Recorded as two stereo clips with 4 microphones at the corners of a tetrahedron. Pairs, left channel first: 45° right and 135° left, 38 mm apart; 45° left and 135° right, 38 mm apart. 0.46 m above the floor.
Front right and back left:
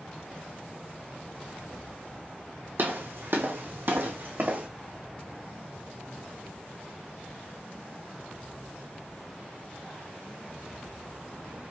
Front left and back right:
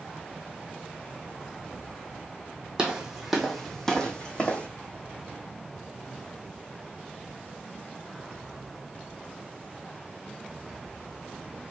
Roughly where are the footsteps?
Behind left.